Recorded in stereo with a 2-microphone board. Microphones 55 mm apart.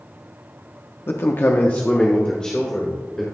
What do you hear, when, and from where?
1.1 s a man speaking: 45° left (ahead or behind), 0.7 m; by 3.2 s 10° left (ahead or behind), 2 m